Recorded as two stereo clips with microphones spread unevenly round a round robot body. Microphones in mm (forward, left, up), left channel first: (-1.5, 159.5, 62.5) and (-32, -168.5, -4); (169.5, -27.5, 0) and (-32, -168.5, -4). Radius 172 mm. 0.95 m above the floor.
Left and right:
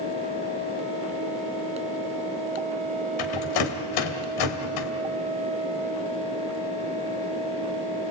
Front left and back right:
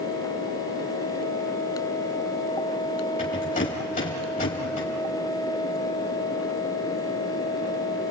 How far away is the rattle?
About 2.5 m.